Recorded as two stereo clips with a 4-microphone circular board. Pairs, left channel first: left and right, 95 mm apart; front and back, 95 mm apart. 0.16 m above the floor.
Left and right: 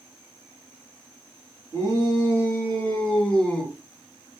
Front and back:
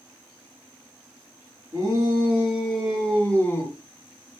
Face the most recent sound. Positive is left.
turn(degrees=15)